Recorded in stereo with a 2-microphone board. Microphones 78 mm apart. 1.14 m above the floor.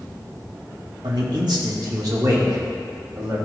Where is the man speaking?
65° right (ahead or behind), 1.2 m; by 3.4 s 50° right (ahead or behind), 2.5 m.